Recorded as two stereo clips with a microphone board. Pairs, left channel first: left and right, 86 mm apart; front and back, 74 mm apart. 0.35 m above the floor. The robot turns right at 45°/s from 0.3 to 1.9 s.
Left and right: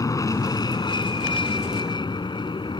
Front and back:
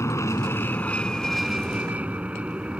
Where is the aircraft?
45° left; by 2.8 s 105° left.